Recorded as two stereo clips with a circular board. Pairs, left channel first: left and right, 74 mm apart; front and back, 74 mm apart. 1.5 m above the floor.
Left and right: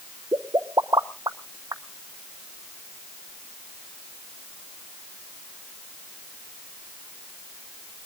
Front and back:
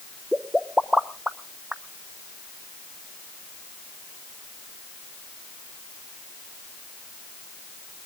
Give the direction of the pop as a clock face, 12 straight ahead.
3 o'clock.